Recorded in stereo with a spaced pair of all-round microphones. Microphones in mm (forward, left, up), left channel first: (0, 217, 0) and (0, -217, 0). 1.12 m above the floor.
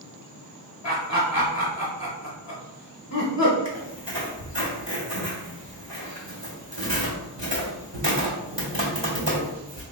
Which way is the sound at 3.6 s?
75° right (ahead or behind).